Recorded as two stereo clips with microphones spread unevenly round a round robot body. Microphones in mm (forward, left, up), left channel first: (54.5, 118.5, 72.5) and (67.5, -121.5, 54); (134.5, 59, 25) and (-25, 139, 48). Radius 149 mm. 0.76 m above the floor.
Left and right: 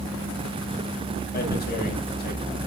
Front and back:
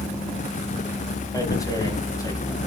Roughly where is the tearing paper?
Ahead left.